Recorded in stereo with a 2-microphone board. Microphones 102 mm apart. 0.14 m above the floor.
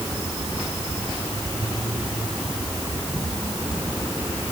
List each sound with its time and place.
Only background noise.